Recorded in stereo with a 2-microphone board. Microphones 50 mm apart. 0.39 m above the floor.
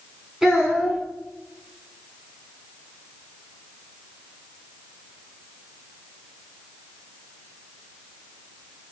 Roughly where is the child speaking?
Centre.